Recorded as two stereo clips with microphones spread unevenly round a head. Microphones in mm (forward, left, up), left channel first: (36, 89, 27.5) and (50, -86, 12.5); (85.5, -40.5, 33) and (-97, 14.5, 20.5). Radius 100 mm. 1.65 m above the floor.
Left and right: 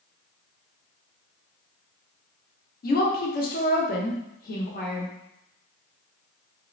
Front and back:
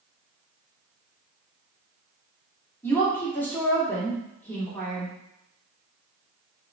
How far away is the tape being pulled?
No tape being pulled in this recording.